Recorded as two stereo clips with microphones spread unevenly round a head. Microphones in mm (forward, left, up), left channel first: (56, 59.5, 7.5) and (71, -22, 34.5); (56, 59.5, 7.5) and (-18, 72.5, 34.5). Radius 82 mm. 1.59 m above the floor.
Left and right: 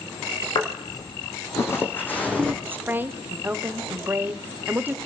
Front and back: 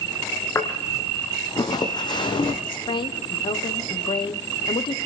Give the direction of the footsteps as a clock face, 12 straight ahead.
10 o'clock.